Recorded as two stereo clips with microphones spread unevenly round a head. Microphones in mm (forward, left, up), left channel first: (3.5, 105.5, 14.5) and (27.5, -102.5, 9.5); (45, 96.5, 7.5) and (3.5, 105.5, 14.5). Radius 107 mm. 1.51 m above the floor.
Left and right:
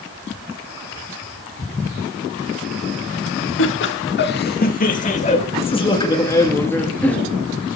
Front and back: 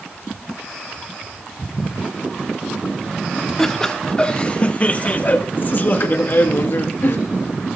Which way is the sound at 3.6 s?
65° left.